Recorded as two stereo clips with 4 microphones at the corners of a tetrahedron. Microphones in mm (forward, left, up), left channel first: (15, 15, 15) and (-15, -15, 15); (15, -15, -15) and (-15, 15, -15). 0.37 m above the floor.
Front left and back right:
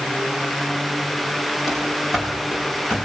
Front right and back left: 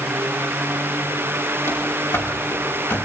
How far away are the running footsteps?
About 6.5 m.